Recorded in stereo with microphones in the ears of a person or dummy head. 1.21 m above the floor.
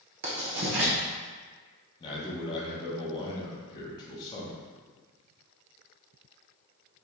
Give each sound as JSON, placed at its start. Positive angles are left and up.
{"t": 0.2, "sound": "writing", "side_deg": -55, "distance_m": 0.9}
{"t": 2.0, "sound": "a man speaking", "side_deg": 25, "distance_m": 1.0}